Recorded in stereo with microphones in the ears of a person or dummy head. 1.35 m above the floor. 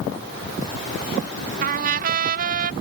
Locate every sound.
1.6 s a trumpet: 60° right (ahead or behind)